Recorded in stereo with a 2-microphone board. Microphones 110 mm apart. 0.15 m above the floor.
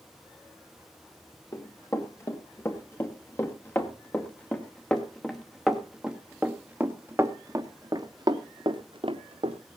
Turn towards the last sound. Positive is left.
turn(degrees=-60)  # may be behind; listen again after turning